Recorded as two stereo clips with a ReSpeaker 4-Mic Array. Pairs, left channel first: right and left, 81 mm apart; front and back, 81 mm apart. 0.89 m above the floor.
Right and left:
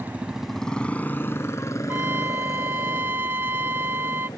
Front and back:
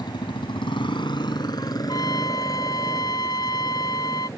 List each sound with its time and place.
0.0 s a motorcycle: 30° left; by 4.4 s 55° right
1.9 s a trumpet: 30° left